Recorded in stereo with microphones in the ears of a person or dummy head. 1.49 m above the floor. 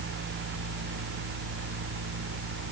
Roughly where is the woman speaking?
No woman speaking in this recording.